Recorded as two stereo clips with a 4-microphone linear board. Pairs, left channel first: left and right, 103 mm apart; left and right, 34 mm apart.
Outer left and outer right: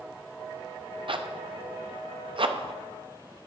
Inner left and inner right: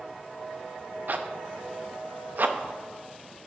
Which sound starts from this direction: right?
A zipper, at 1.1 s.